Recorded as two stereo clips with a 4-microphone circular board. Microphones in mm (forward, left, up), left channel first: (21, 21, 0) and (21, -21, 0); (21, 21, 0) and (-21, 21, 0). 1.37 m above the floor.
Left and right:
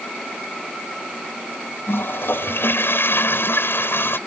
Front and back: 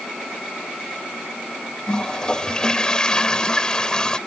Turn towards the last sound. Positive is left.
turn(degrees=70)